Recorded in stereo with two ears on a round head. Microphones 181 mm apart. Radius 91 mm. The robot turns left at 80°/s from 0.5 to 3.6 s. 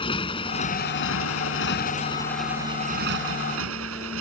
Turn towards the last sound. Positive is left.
turn(degrees=-95)